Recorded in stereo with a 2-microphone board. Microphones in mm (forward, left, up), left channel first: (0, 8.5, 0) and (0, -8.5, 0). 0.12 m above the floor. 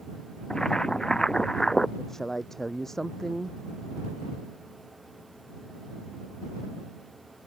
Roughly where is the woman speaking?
Left.